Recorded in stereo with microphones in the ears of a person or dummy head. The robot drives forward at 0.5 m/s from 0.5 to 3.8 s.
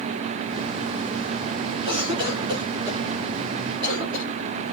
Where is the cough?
35° right (ahead or behind), 5 m; by 4.2 s 30° right (ahead or behind), 5.5 m.